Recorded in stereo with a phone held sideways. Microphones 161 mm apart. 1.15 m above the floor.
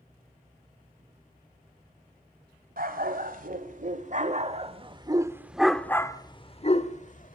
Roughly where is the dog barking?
Right.